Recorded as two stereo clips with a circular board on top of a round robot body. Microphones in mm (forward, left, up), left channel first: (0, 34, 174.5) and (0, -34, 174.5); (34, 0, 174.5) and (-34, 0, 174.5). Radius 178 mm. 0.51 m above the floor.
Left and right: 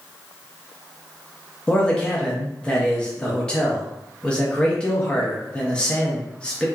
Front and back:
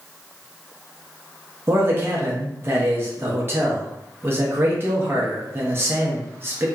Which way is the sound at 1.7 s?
155° left.